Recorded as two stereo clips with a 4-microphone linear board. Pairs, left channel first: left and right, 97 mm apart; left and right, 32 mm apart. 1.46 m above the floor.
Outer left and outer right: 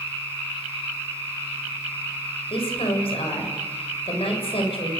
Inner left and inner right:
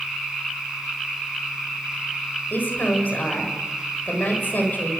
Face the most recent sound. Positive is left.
turn(degrees=75)  # may be behind; listen again after turning